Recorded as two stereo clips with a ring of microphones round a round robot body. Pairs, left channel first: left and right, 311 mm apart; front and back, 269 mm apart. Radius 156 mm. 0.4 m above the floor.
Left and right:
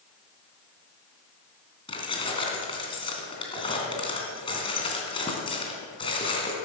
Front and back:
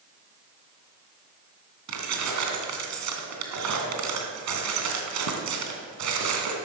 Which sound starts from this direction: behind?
Keys jangling, at 1.9 s.